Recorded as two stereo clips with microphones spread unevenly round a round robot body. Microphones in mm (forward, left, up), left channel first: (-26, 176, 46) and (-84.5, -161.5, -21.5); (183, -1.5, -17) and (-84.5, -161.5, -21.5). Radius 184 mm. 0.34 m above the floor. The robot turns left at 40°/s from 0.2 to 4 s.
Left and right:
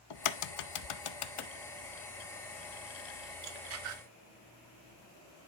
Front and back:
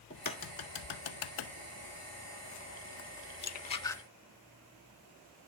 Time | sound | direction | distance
0.1 | a crack | 100° left | 0.5 m